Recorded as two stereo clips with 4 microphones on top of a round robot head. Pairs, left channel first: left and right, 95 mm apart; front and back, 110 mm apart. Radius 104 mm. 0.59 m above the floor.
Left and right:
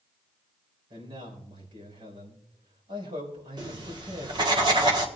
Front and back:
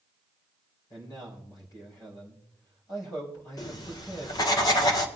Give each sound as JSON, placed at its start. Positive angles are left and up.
{"t": 0.9, "sound": "a man speaking", "azimuth_deg": -60, "distance_m": 4.5}
{"t": 3.6, "sound": "writing", "azimuth_deg": -55, "distance_m": 1.4}